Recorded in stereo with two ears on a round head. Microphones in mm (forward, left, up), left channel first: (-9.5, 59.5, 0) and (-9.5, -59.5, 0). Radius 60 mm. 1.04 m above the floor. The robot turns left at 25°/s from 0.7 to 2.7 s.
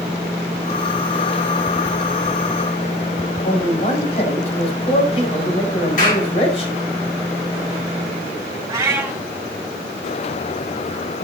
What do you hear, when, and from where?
3.5 s a man speaking: 50° left (ahead or behind), 4.5 m
6.0 s a clap: 70° left (ahead or behind), 5.5 m
8.7 s a cat meowing: 25° right (ahead or behind), 3 m